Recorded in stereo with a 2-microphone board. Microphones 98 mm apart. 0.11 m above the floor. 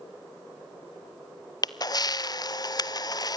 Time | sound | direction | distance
1.6 | a camera shutter | 40° left (ahead or behind) | 0.7 m